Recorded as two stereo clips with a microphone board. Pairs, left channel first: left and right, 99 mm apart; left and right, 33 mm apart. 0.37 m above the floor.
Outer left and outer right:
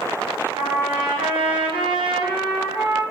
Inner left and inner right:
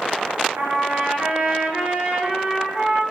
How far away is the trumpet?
About 2.5 m.